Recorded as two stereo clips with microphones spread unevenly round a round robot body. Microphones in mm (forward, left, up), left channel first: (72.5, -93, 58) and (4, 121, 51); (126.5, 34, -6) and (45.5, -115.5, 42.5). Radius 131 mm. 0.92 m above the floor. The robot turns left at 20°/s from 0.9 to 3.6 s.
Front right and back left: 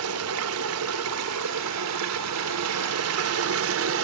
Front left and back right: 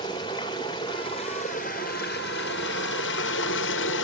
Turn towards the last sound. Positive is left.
turn(degrees=85)